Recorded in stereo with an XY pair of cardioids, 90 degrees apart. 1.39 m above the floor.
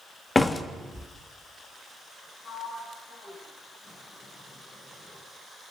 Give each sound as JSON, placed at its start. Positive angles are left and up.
{"t": 0.3, "sound": "a door slam", "azimuth_deg": 25, "distance_m": 1.8}
{"t": 2.4, "sound": "a sliding door", "azimuth_deg": 55, "distance_m": 9.5}